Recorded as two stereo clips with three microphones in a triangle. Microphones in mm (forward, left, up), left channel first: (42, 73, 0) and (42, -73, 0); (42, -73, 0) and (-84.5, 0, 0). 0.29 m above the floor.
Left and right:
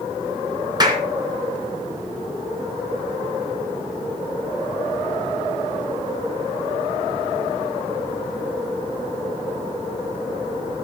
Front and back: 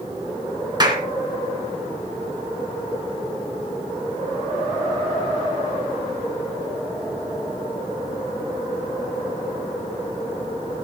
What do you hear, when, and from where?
0.8 s a clap: 150° right, 2.5 m